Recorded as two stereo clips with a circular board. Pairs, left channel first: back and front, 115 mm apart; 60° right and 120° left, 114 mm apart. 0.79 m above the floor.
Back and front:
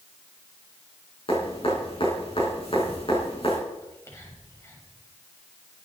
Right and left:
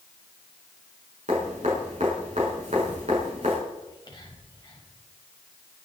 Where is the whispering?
110° right, 4 m.